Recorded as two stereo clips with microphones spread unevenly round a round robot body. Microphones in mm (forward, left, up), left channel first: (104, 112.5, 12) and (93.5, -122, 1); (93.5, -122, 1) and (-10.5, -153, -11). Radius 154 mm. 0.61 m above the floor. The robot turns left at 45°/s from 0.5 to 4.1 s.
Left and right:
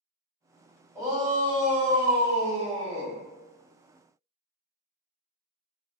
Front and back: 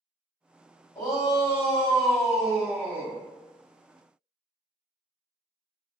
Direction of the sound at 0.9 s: 20° right.